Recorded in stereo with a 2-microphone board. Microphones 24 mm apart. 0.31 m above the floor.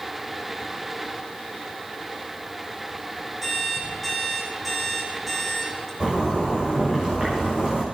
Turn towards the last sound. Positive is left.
turn(degrees=-35)  # may be behind; listen again after turning